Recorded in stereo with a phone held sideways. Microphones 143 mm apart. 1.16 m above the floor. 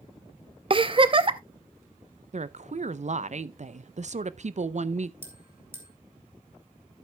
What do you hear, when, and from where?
0.7 s a giggle: 40° right (ahead or behind), 0.6 m
2.3 s a woman speaking: 55° right (ahead or behind), 0.5 m
5.2 s a bell: 15° right (ahead or behind), 1.9 m